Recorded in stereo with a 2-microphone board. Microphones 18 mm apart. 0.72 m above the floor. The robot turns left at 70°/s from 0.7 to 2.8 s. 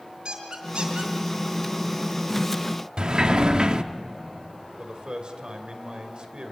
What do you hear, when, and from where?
0.2 s a squeak: 50° right (ahead or behind), 3.5 m; by 1.1 s 80° right, 3.5 m
3.0 s a sliding door: 50° right (ahead or behind), 0.9 m
4.8 s a man speaking: 55° right (ahead or behind), 2.5 m